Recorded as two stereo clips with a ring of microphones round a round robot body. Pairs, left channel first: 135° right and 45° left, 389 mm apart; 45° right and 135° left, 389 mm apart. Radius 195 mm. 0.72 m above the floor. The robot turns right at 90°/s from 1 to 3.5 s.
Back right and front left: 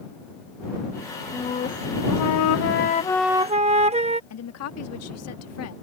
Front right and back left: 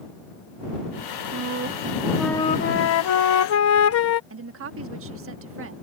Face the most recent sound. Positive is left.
turn(degrees=-175)